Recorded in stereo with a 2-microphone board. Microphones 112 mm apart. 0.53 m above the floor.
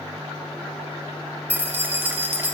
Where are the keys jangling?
20° right (ahead or behind), 1.0 m.